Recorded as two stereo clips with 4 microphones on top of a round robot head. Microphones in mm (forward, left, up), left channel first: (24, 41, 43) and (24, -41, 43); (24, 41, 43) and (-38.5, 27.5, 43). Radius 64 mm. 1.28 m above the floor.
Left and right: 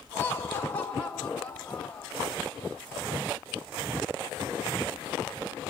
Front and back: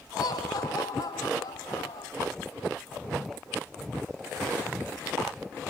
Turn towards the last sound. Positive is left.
turn(degrees=10)